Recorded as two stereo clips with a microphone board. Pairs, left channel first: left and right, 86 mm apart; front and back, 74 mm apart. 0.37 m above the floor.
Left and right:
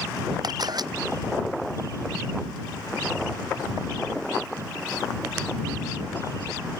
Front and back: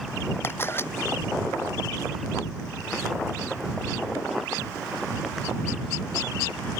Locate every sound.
0.4 s a camera shutter: 60° right